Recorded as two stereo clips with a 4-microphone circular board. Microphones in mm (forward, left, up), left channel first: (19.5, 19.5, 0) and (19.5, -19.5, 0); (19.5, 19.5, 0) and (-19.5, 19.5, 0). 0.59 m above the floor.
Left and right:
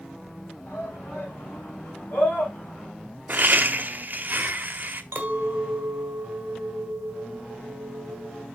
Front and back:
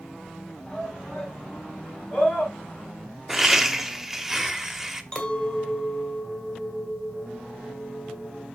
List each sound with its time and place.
0.7 s a shout: 75° left, 5.5 m; by 2.9 s 55° left, 4.5 m
3.3 s laughter: 100° right, 0.9 m
5.1 s a clink: 60° right, 1.7 m